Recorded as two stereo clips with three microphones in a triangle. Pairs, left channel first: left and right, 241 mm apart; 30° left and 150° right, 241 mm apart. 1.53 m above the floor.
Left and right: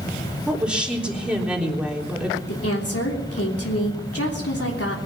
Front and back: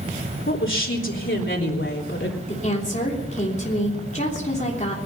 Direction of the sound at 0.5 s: 5° right.